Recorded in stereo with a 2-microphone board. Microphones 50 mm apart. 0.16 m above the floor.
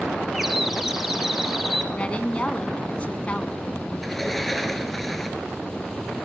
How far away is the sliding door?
About 1.8 m.